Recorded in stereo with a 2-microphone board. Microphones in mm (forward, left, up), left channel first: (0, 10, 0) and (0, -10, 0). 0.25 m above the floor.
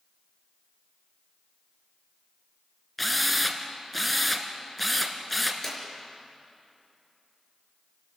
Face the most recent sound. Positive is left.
turn(degrees=10)  # may be behind; listen again after turning